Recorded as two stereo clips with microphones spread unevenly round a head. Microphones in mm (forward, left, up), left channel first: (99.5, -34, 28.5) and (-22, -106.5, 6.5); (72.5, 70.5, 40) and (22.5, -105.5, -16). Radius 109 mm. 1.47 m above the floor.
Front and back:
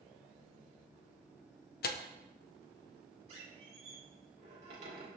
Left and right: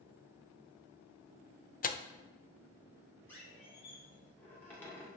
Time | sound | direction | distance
1.8 | tearing paper | 30° left | 0.8 m
3.3 | a squeak | 145° left | 1.8 m